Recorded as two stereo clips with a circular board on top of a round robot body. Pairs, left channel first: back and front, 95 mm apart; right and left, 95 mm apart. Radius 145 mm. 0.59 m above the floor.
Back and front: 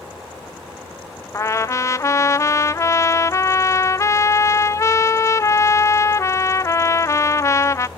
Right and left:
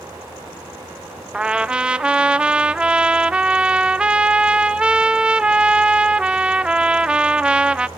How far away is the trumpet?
About 0.7 m.